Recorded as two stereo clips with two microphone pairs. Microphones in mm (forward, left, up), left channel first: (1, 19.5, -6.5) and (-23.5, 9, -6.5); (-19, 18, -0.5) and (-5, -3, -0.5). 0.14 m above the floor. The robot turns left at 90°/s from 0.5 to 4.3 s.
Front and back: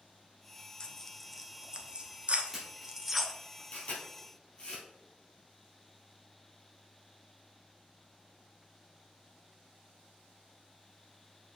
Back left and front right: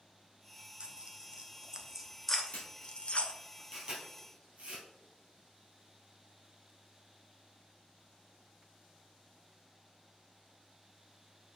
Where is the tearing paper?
30° right, 0.9 m; by 3.3 s 105° left, 0.9 m.